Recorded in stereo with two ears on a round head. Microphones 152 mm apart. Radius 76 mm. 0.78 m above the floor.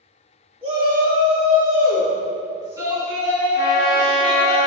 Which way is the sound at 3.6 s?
55° left (ahead or behind).